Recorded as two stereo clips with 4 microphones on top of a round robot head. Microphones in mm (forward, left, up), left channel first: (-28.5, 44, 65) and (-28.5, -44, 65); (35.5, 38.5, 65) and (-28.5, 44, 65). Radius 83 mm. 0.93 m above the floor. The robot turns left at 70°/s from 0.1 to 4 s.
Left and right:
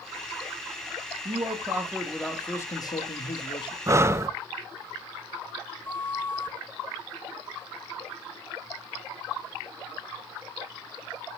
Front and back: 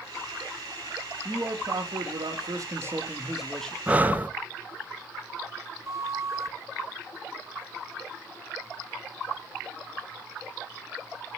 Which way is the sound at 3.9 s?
125° right.